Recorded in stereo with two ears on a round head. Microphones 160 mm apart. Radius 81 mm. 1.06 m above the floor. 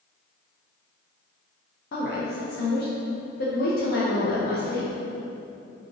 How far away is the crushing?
No crushing in this recording.